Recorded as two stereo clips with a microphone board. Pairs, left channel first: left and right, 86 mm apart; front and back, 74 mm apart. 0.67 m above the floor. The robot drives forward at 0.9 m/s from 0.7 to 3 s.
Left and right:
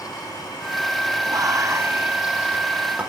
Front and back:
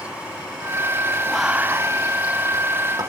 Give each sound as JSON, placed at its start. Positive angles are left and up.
{"t": 1.3, "sound": "whispering", "azimuth_deg": -80, "distance_m": 0.6}